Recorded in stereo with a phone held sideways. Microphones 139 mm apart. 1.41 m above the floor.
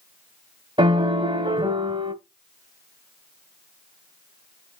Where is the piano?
35° right (ahead or behind), 1.3 m.